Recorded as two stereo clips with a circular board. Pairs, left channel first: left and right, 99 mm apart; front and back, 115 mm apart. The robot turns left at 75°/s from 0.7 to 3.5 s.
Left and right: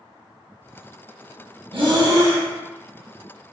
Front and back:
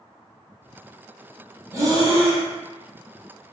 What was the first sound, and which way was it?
Breathing, 115° right.